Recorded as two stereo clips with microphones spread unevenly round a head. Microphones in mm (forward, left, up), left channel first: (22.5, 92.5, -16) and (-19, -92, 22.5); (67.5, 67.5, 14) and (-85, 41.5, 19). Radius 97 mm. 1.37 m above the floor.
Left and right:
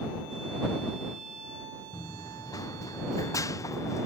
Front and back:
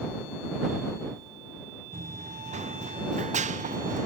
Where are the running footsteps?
150° left; by 4.1 s 155° left.